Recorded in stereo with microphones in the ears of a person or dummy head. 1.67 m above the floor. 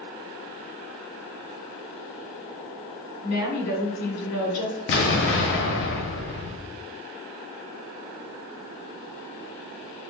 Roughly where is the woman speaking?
Left.